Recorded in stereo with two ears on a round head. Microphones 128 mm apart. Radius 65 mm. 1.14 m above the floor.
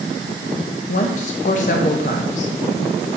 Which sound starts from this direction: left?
A woman speaking, at 0.9 s.